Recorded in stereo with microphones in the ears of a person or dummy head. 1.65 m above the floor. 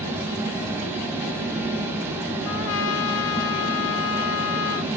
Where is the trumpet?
70° left (ahead or behind), 0.7 m.